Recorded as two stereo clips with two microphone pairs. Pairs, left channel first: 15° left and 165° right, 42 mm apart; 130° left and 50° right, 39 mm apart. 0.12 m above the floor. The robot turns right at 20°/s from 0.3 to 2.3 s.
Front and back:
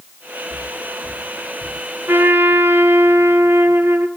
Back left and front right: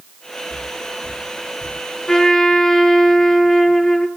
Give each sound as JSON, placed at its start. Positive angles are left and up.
{"t": 0.5, "sound": "footsteps", "azimuth_deg": -25, "distance_m": 2.0}
{"t": 2.1, "sound": "a trumpet", "azimuth_deg": -160, "distance_m": 0.6}